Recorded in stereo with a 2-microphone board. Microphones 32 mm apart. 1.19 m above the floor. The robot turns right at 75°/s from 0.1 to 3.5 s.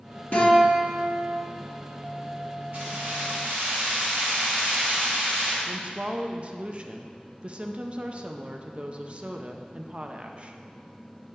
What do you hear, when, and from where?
0.3 s a guitar: 130° left, 1.9 m; by 1.4 s 155° right, 1.9 m
2.7 s keys jangling: 120° right, 3 m; by 5.6 s 65° right, 3 m
5.7 s a woman speaking: 40° right (ahead or behind), 0.5 m